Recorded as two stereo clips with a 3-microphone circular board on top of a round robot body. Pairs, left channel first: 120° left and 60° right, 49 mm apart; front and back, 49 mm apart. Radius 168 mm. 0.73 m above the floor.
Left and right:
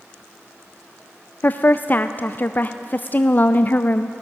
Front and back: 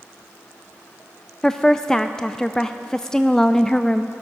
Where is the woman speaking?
75° left, 0.5 m.